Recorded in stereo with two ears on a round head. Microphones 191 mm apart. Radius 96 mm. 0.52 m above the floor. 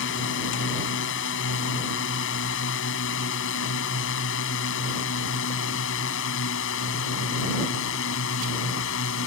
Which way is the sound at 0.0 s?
60° left (ahead or behind).